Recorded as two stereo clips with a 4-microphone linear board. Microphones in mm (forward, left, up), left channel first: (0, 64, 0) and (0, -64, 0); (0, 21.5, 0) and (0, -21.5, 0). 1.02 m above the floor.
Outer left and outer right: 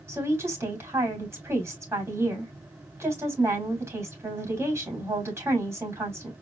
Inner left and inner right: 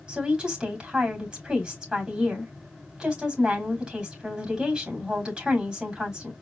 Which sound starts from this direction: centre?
A woman speaking, at 0.1 s.